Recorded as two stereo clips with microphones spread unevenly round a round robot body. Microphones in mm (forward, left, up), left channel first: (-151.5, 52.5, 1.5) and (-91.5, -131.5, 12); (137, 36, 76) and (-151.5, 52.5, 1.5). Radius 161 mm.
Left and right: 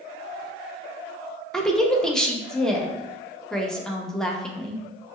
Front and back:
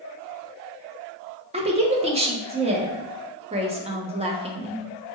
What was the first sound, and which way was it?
A woman speaking, 170° right.